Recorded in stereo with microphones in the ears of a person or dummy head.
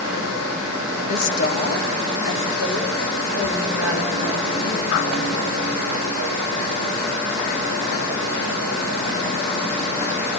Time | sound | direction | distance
1.1 | a woman speaking | 35° left (ahead or behind) | 2 m